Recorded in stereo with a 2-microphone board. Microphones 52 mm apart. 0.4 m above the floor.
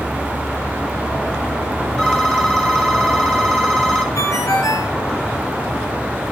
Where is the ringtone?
80° left, 3.5 m.